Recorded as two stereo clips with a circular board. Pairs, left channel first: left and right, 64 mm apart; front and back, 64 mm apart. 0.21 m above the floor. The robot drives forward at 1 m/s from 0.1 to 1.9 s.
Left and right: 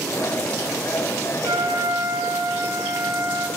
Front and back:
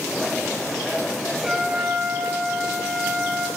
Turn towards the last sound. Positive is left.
turn(degrees=-110)